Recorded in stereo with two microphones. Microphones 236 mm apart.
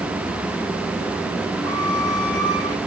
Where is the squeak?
15° left (ahead or behind), 2 m.